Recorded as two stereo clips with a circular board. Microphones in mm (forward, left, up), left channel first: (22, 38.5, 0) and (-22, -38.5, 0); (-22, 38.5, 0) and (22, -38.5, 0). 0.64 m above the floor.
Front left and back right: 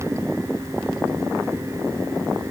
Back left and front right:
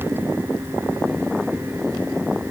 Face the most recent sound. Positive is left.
No sound to turn to.